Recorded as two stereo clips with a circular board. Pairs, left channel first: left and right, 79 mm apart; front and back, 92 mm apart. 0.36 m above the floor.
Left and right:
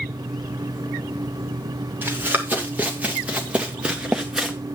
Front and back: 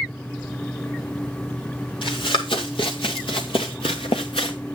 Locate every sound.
2.0 s running footsteps: 25° right, 3 m; by 4.6 s 5° right, 1.7 m